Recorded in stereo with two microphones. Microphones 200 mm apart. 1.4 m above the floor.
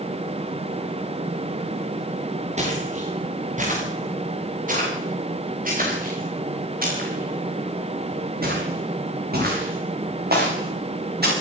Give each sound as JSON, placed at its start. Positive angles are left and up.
{"t": 2.6, "sound": "footsteps", "side_deg": -35, "distance_m": 7.5}